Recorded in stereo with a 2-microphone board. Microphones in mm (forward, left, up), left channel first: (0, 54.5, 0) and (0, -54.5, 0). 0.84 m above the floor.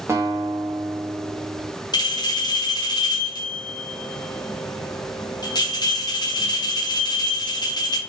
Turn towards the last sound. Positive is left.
turn(degrees=40)  # may be behind; listen again after turning